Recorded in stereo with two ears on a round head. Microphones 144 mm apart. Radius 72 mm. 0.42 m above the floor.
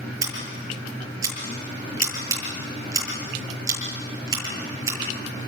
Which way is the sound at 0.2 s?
20° right (ahead or behind).